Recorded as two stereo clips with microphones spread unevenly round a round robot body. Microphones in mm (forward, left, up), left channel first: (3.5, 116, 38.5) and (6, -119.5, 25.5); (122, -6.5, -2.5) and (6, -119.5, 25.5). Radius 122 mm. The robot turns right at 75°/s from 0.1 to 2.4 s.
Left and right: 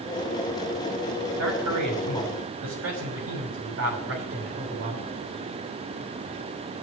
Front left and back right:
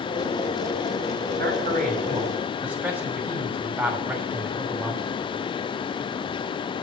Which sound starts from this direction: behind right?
A man speaking, at 1.4 s.